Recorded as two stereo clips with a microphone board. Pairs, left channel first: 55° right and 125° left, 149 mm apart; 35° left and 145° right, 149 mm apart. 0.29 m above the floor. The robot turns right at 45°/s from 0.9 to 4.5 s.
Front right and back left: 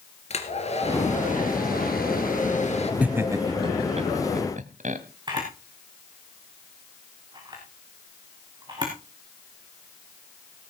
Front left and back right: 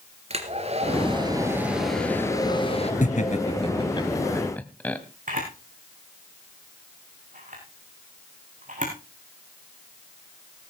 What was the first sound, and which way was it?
A hair dryer, 100° right.